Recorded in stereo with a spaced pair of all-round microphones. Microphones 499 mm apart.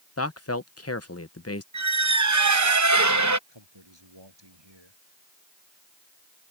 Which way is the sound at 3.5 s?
55° right (ahead or behind).